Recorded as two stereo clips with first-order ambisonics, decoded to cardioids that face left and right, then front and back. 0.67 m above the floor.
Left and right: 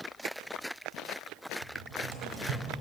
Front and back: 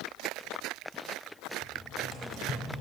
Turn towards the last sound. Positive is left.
turn(degrees=-75)